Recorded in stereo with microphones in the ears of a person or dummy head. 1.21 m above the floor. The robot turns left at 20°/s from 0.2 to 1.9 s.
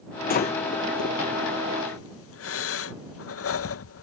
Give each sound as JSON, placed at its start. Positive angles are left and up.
{"t": 0.3, "sound": "breathing", "side_deg": 50}